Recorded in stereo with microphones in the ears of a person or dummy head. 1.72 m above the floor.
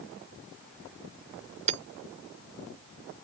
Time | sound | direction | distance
1.7 | hammering | 40° right (ahead or behind) | ?